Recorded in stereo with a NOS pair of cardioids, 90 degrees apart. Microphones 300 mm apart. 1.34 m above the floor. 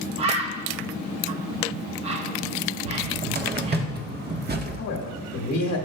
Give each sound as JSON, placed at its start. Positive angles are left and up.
{"t": 0.2, "sound": "a bird", "azimuth_deg": -20, "distance_m": 1.0}
{"t": 2.9, "sound": "a cupboard door", "azimuth_deg": -30, "distance_m": 1.1}
{"t": 4.8, "sound": "a man speaking", "azimuth_deg": 70, "distance_m": 1.5}